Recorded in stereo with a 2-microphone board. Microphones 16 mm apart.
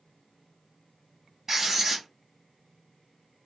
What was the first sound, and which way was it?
Writing, 20° right (ahead or behind).